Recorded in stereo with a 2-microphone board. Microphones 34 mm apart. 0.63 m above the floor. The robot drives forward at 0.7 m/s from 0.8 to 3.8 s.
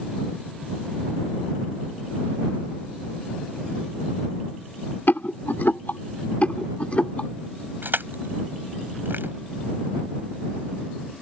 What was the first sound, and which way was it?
A rattle, 70° left (ahead or behind).